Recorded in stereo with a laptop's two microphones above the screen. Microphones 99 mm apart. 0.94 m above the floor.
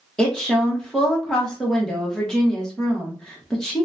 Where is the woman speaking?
5° left (ahead or behind), 0.9 m.